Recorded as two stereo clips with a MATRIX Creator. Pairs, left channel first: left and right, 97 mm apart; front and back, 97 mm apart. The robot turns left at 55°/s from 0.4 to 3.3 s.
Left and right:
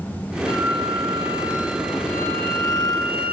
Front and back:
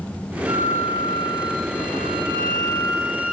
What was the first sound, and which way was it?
A flute, 100° right.